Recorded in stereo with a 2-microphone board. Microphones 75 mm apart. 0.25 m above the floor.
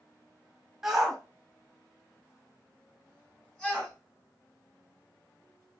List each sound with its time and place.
0.8 s a shout: 5° right (ahead or behind), 1.6 m; by 3.9 s 10° left (ahead or behind), 1.8 m